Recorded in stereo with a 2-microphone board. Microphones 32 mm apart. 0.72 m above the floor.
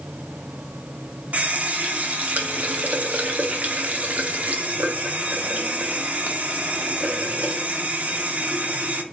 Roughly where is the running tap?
Right.